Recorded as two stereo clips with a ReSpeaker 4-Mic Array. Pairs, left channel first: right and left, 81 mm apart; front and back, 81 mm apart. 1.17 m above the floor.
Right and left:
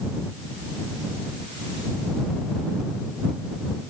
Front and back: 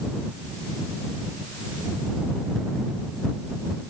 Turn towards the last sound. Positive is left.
No sound to turn to.